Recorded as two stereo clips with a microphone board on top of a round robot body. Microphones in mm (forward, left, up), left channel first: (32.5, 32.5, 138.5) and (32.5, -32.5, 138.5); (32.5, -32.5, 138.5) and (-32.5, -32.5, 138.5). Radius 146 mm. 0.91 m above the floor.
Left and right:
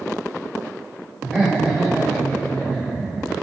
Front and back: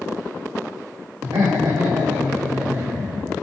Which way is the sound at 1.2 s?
165° left.